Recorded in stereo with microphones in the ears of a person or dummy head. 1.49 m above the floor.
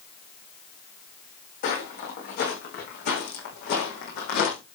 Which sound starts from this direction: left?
Footsteps, at 1.6 s.